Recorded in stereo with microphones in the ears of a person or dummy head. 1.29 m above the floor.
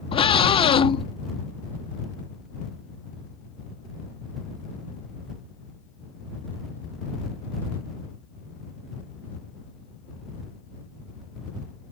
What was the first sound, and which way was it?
A scream, 25° left (ahead or behind).